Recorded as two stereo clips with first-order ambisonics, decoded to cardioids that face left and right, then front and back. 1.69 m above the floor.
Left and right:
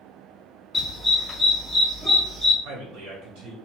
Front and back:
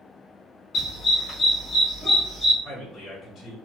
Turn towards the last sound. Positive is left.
turn(degrees=-70)